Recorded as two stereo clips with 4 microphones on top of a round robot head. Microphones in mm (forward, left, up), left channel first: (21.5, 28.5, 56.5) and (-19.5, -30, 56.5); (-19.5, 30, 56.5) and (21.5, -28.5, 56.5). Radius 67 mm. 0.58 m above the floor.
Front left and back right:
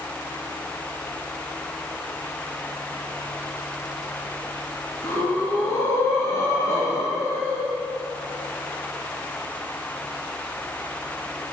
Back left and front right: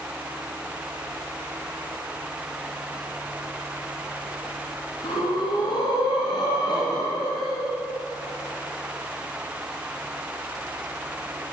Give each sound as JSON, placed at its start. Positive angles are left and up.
{"t": 5.0, "sound": "breathing", "azimuth_deg": 110, "distance_m": 2.5}